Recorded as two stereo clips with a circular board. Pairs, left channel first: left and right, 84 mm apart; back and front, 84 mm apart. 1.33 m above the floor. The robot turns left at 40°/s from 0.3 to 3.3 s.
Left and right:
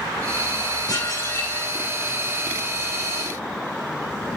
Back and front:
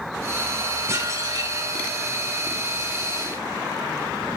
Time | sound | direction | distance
0.9 | dishes clattering | 55° left | 3.5 m